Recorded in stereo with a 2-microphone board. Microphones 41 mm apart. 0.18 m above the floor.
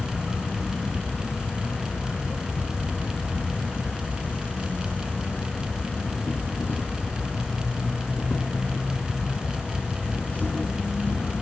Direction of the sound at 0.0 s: 45° left (ahead or behind).